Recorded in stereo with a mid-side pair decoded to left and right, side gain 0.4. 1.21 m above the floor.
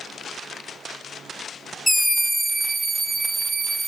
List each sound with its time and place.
1.9 s a scream: 10° left, 0.8 m; by 3.9 s 45° right, 1.7 m